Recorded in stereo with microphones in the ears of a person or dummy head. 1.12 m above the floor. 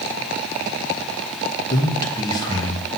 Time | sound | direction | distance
1.7 | a man speaking | 25° left (ahead or behind) | 1.0 m